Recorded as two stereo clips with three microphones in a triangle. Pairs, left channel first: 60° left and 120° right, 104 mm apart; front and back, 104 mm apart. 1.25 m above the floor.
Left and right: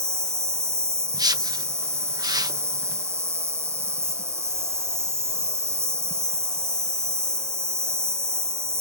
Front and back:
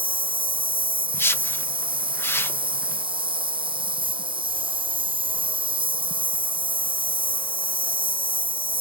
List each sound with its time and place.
0.0 s an insect: straight behind
1.1 s a whoosh: 65° right